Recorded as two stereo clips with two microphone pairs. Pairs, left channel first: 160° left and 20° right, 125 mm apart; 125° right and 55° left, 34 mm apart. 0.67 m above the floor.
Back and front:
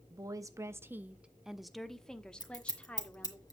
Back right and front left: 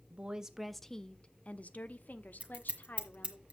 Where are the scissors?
105° left, 1.6 m.